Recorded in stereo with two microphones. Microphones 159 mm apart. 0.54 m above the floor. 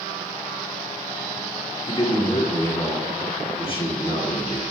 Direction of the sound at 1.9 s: 35° left (ahead or behind).